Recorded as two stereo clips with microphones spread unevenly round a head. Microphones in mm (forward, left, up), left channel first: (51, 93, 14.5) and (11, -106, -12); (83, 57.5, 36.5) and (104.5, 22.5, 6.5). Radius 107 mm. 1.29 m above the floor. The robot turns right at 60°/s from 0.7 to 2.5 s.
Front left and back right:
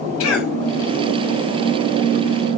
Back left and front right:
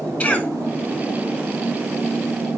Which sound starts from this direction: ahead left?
A cough, at 0.2 s.